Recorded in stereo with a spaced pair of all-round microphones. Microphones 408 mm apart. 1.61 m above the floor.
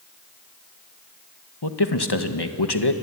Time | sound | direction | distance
1.6 | a man speaking | 70° left (ahead or behind) | 1.8 m